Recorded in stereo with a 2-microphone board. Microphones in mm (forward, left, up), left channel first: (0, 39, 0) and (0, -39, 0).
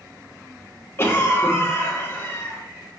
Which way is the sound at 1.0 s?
30° left (ahead or behind).